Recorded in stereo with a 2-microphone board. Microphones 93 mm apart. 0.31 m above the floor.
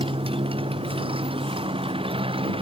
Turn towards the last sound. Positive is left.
turn(degrees=-75)  # may be behind; listen again after turning